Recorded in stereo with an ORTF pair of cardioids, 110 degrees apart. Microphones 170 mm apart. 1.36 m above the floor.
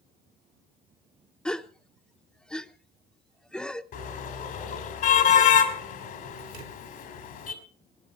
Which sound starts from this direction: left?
A car horn, at 3.9 s.